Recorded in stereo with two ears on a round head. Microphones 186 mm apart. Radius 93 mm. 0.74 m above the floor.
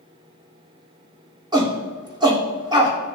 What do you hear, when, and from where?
1.5 s a shout: 20° right (ahead or behind), 2 m